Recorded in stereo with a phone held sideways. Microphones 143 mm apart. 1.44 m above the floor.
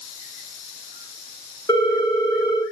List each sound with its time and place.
1.7 s a ringtone: 20° left (ahead or behind), 1.2 m